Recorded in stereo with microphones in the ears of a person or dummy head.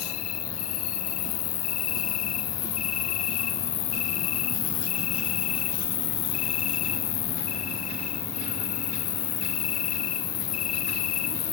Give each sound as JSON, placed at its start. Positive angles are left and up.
{"t": 0.0, "sound": "an insect", "side_deg": 80, "distance_m": 1.1}